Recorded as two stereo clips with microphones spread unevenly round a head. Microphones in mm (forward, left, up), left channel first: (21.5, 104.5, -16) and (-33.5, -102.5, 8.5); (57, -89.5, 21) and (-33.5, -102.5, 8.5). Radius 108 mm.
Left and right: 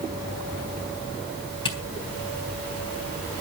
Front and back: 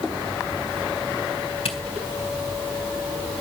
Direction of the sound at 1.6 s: 5° left.